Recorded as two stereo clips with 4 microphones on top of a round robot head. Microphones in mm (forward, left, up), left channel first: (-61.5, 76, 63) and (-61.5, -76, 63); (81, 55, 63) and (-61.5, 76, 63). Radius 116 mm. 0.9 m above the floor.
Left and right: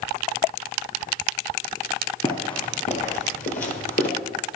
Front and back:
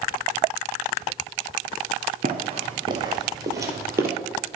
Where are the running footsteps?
145° left, 1.3 m; by 4.1 s 100° left, 1.7 m.